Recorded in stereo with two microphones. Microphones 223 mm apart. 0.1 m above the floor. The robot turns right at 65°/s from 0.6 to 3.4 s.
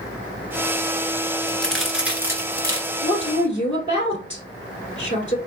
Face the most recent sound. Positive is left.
turn(degrees=30)  # may be behind; listen again after turning